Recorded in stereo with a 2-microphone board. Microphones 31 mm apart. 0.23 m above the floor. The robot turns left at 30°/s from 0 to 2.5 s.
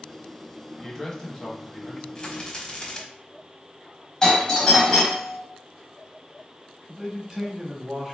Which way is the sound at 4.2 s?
20° left (ahead or behind).